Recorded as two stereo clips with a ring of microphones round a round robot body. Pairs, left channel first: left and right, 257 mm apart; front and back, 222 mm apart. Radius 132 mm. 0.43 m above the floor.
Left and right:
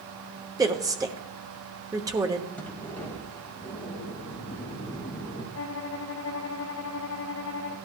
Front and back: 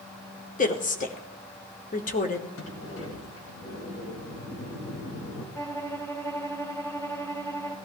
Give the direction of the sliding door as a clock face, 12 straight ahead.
12 o'clock.